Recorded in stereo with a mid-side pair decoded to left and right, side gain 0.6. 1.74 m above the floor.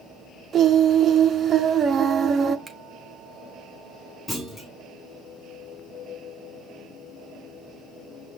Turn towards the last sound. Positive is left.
turn(degrees=15)